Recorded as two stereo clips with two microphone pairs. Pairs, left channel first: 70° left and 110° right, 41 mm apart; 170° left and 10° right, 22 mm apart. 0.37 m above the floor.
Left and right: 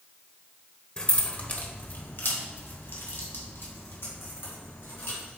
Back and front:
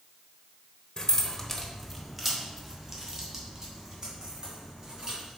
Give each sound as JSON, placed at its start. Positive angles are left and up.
{"t": 1.0, "sound": "keys jangling", "azimuth_deg": 125, "distance_m": 1.0}